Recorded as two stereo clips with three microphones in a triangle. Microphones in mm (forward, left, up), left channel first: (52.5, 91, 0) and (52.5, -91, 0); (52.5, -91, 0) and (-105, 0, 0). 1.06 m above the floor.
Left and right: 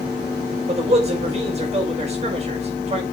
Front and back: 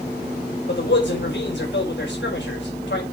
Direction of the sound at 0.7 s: 35° right.